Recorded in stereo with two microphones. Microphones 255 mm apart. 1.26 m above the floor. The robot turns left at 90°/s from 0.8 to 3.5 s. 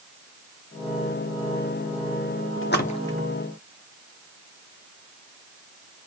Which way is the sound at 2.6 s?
50° left (ahead or behind).